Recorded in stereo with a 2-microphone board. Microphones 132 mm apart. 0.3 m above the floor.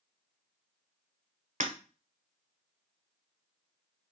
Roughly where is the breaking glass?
Right.